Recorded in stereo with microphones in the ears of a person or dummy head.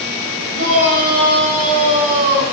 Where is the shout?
45° right (ahead or behind), 6.5 m.